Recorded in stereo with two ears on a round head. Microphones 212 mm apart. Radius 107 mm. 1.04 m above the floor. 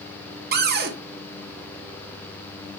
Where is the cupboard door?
45° right (ahead or behind), 0.9 m.